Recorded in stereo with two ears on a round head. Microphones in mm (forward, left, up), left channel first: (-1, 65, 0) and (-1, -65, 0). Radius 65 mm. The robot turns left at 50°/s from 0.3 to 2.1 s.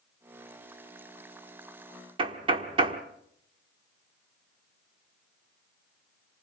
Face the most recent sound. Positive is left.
turn(degrees=-35)  # may be behind; listen again after turning